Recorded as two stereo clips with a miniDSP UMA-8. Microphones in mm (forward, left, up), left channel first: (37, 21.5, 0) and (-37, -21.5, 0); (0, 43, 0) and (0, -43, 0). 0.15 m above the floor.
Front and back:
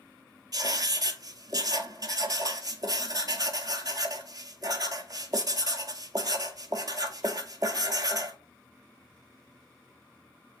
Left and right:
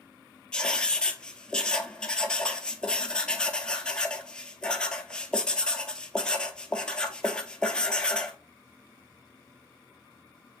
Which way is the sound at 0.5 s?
170° left.